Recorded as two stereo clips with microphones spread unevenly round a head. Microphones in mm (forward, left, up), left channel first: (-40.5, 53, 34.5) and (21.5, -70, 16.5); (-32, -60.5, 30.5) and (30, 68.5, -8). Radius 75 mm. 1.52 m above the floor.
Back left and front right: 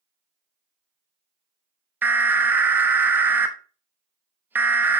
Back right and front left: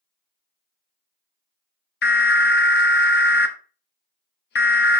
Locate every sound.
2.0 s an alarm: 135° right, 1.0 m